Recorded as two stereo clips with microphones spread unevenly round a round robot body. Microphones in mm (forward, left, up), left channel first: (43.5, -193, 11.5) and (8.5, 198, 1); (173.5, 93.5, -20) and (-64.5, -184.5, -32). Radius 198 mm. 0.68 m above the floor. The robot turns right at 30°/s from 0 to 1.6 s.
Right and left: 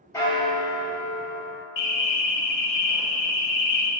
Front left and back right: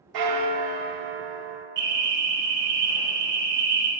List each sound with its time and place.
0.1 s a bell: 165° right, 0.8 m; by 1.7 s 125° right, 0.8 m
1.8 s an alarm: 70° right, 1.4 m